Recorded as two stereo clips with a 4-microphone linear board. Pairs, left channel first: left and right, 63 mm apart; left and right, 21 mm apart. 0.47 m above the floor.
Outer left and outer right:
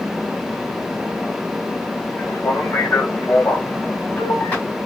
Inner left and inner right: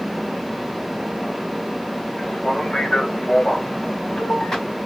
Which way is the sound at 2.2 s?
55° left (ahead or behind).